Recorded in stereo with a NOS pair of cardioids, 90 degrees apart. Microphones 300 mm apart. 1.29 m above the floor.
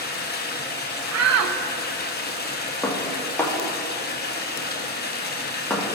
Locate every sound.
0.0 s running water: 35° left, 1.1 m
1.1 s a shout: 60° right, 0.9 m
2.8 s dishes clattering: 5° left, 1.4 m